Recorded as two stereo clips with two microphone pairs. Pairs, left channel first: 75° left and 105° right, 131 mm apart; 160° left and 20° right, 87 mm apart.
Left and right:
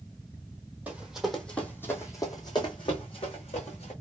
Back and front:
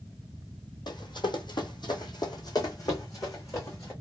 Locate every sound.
0.9 s running footsteps: 175° left, 1.2 m; by 3.9 s 110° left, 2 m